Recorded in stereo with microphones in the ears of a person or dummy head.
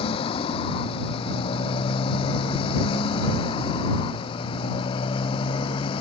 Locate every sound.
0.0 s a motorcycle: 35° left (ahead or behind)